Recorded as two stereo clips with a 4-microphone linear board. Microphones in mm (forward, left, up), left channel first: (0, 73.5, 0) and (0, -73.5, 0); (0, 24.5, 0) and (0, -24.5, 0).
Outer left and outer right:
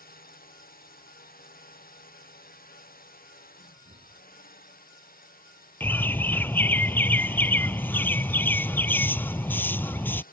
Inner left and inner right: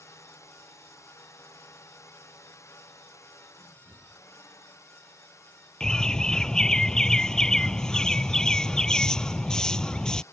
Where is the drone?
85° left; by 10.3 s 75° left (ahead or behind).